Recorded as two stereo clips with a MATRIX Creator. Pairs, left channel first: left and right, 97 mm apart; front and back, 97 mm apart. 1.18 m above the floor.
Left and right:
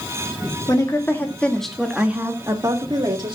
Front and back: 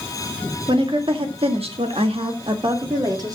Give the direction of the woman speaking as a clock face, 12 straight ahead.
7 o'clock.